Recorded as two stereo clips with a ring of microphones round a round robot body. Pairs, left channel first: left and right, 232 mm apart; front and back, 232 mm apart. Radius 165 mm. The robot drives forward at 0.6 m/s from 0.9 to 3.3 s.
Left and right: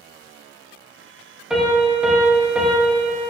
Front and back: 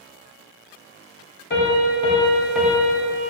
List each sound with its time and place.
1.5 s a piano: 5° right, 1.0 m; by 3.2 s 175° right, 0.8 m